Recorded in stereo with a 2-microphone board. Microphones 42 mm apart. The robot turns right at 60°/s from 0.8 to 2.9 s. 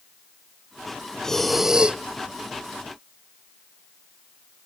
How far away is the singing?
No singing in this recording.